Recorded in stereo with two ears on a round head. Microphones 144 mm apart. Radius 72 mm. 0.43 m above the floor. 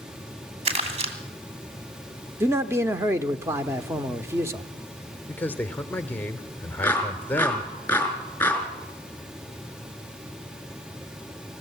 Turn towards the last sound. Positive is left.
turn(degrees=10)  # may be behind; listen again after turning